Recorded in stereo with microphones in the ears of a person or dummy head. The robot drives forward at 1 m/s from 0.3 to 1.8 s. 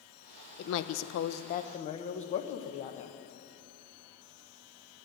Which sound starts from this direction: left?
A woman speaking, at 0.6 s.